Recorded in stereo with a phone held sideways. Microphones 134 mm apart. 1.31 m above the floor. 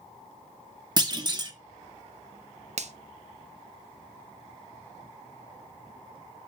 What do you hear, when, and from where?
1.0 s a clunk: 30° right (ahead or behind), 1.0 m
2.8 s a finger snap: 55° right (ahead or behind), 0.7 m